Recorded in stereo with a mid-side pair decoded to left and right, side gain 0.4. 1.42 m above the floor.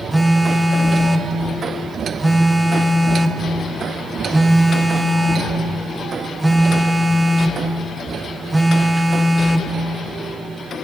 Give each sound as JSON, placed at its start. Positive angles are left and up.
{"t": 0.1, "sound": "a phone buzzing", "azimuth_deg": -15, "distance_m": 0.6}